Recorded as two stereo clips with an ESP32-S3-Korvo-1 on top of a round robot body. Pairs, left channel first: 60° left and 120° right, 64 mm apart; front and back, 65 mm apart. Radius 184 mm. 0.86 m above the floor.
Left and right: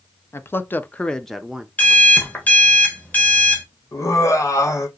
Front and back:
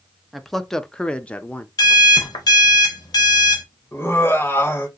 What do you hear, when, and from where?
0.3 s a man speaking: 90° left, 0.8 m; by 1.7 s 45° right, 0.7 m
1.8 s an alarm clock: 5° right, 0.9 m
3.9 s laughter: 45° left, 1.3 m